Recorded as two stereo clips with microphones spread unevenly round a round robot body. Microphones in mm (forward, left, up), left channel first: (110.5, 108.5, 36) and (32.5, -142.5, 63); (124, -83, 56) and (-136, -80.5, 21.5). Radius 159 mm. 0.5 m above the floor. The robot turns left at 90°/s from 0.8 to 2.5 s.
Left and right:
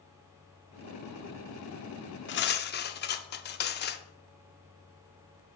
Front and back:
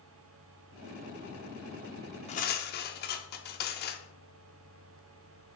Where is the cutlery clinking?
70° left, 0.6 m; by 4.0 s 50° left, 0.6 m.